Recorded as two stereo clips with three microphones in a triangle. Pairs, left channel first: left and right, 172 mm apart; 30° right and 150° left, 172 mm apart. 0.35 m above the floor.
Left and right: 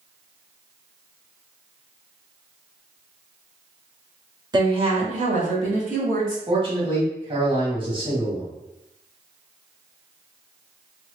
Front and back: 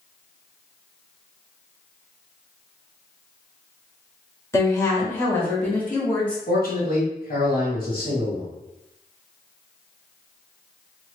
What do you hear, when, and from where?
4.5 s a woman speaking: 75° right, 1.0 m; by 6.4 s 110° right, 2 m
6.5 s a man speaking: 35° right, 1.9 m